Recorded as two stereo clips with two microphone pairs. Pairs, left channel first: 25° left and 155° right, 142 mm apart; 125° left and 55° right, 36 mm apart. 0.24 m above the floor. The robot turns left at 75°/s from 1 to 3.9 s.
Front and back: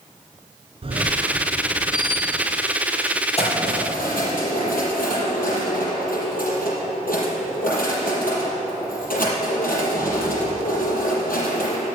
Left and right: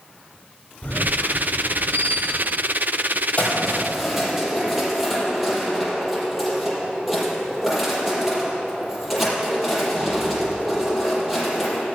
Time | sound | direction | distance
0.8 | a squeak | 160° left | 2 m
3.4 | keys jangling | 70° left | 5.5 m